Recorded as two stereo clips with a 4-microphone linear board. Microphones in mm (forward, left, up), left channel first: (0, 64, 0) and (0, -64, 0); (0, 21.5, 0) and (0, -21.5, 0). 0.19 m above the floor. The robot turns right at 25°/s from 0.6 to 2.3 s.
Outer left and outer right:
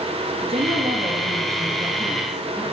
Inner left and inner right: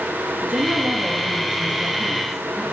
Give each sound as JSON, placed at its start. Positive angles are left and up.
{"t": 0.4, "sound": "a woman speaking", "azimuth_deg": -60, "distance_m": 3.0}